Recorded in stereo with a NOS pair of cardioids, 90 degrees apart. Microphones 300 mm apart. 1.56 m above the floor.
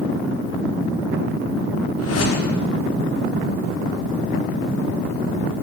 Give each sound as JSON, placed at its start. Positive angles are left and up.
{"t": 2.0, "sound": "a whoosh", "azimuth_deg": 55, "distance_m": 5.0}